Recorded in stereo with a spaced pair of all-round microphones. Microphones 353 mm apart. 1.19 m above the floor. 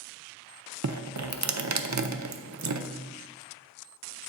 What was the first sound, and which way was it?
Dripping, 50° right (ahead or behind).